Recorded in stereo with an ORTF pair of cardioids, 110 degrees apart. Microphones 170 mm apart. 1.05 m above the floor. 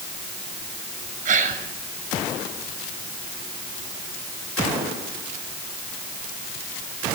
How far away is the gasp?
About 6.5 m.